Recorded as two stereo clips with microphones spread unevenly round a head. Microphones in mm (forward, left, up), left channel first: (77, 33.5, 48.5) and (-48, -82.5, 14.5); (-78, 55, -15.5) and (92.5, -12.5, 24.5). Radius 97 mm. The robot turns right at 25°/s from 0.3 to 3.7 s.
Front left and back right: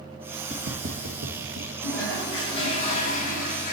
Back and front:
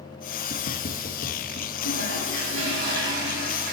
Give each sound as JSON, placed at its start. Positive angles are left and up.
{"t": 0.5, "sound": "footsteps", "azimuth_deg": 175, "distance_m": 1.9}
{"t": 1.8, "sound": "a toilet flushing", "azimuth_deg": -35, "distance_m": 3.5}